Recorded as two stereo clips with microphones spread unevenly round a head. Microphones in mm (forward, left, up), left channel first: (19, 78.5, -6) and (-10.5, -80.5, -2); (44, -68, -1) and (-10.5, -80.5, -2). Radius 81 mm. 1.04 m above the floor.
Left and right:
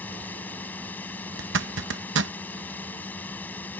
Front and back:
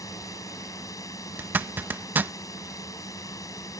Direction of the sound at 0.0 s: Straight ahead.